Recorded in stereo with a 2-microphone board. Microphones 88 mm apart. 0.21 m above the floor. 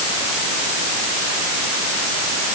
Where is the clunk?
No clunk in this recording.